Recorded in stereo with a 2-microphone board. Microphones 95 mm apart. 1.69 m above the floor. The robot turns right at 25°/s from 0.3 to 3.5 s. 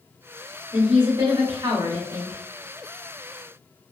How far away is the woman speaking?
About 1.1 m.